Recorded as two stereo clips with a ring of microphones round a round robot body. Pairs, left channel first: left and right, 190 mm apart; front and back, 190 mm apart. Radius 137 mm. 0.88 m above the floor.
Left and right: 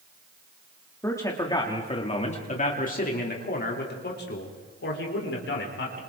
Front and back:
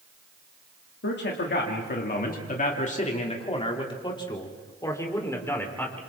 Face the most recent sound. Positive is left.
turn(degrees=80)